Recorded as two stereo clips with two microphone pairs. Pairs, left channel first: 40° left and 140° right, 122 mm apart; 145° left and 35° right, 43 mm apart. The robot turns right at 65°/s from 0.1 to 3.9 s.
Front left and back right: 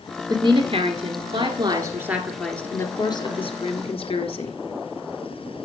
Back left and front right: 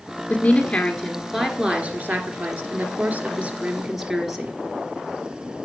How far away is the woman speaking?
About 2 m.